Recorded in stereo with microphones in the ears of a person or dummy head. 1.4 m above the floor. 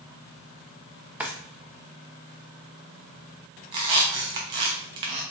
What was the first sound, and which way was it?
A drawer, 10° right (ahead or behind).